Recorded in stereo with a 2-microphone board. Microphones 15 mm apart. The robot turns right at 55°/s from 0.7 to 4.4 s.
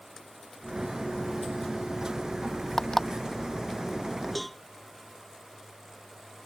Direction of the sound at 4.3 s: Centre (ahead or behind).